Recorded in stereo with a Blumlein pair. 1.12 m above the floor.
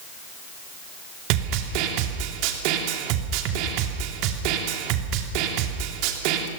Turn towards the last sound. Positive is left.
turn(degrees=-45)